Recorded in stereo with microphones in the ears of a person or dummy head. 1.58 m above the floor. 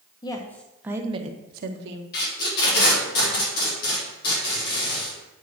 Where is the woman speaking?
25° left (ahead or behind), 1.2 m; by 2.0 s 65° right (ahead or behind), 1.3 m.